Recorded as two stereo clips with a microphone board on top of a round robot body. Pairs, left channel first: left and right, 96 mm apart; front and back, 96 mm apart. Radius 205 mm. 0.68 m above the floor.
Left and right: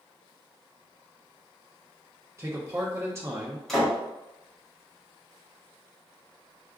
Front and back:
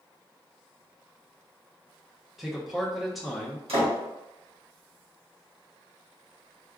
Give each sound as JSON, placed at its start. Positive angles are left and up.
{"t": 2.4, "sound": "a man speaking", "azimuth_deg": -95, "distance_m": 0.9}
{"t": 3.7, "sound": "a door slam", "azimuth_deg": 175, "distance_m": 1.5}